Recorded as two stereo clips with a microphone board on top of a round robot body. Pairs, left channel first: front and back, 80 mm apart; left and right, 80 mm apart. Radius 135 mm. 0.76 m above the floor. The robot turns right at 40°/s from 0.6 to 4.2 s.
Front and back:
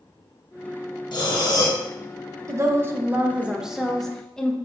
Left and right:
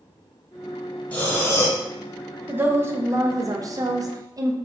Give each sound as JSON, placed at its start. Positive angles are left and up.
{"t": 1.1, "sound": "breathing", "azimuth_deg": 15, "distance_m": 0.8}
{"t": 2.5, "sound": "a woman speaking", "azimuth_deg": -150, "distance_m": 0.5}